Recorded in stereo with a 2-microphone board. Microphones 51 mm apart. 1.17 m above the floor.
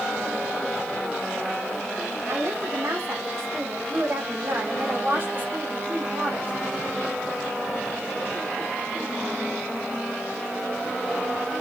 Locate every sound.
2.3 s a woman speaking: 70° right (ahead or behind), 3.5 m; by 6.5 s 35° right (ahead or behind), 3.5 m